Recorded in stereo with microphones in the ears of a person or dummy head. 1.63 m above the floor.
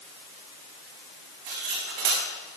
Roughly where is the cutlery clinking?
Right.